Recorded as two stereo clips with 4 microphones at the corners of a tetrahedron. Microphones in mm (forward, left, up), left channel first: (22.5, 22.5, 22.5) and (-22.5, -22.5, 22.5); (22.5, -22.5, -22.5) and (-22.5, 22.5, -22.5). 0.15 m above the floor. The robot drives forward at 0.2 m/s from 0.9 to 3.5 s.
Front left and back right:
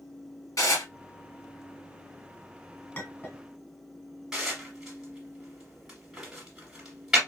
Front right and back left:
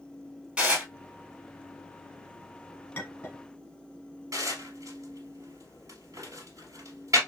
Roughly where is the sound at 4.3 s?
Behind left.